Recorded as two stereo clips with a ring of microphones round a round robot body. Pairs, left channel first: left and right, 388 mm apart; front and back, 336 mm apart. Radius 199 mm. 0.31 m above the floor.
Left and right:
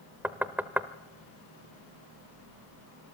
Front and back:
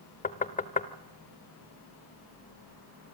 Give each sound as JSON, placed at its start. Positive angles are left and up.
{"t": 0.2, "sound": "knocking", "azimuth_deg": -10, "distance_m": 0.8}